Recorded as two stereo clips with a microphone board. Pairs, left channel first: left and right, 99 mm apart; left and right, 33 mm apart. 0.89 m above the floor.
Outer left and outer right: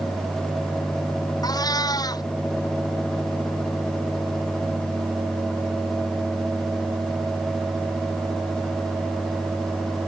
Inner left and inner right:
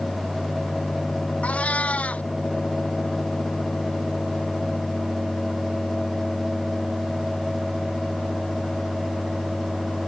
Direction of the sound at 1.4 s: 40° left (ahead or behind).